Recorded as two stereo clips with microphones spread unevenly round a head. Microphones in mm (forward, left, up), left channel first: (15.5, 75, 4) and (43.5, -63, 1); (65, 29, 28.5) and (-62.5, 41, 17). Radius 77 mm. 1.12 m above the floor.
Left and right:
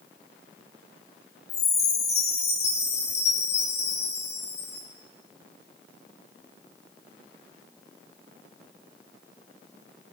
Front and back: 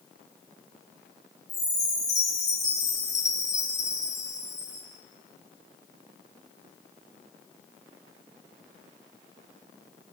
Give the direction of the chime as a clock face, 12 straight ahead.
10 o'clock.